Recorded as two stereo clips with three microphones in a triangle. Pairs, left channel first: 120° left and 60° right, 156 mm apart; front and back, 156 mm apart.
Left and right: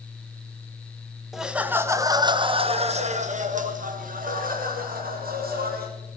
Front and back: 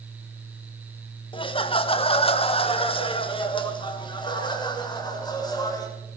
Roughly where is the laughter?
Ahead left.